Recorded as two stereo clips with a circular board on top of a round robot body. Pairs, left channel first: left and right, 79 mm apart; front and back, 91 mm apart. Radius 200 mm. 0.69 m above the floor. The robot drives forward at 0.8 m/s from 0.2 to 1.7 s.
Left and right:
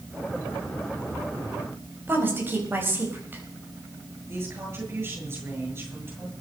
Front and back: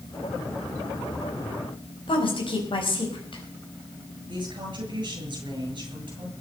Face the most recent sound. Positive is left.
turn(degrees=-145)